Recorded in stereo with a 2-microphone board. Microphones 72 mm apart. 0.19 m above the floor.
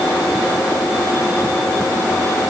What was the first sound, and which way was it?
Only background noise.